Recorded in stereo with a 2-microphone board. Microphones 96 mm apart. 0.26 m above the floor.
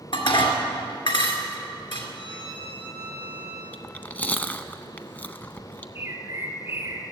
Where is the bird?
30° right (ahead or behind), 1.8 m.